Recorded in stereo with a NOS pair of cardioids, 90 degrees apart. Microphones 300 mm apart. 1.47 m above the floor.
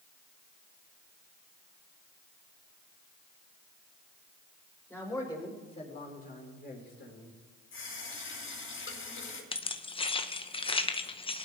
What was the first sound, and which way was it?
A man speaking, 10° left.